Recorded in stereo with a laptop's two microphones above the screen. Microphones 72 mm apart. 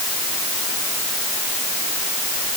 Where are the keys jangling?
I don't hear keys jangling.